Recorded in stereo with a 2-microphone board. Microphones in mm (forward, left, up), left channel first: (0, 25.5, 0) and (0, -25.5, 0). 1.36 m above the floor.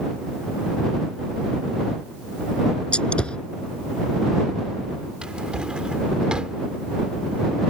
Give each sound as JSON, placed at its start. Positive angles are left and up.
{"t": 2.9, "sound": "a gunshot", "side_deg": 20}
{"t": 5.2, "sound": "a drawer", "side_deg": -20}